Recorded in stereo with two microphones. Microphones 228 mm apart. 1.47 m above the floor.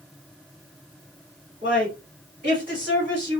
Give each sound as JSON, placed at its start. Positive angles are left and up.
{"t": 1.6, "sound": "a woman speaking", "side_deg": -40, "distance_m": 1.8}